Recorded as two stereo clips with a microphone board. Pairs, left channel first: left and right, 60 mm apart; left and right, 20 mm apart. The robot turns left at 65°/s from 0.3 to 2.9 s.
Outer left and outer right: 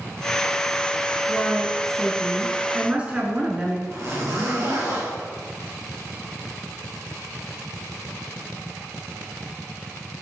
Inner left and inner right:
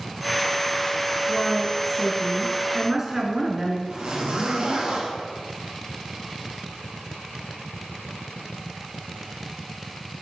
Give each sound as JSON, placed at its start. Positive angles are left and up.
{"t": 1.3, "sound": "a woman speaking", "side_deg": 20, "distance_m": 1.2}
{"t": 3.9, "sound": "a zipper", "side_deg": -60, "distance_m": 3.5}